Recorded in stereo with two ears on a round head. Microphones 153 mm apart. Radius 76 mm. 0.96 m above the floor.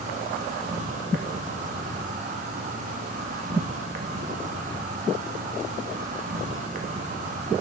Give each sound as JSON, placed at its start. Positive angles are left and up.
{"t": 0.0, "sound": "an insect", "side_deg": -45, "distance_m": 0.8}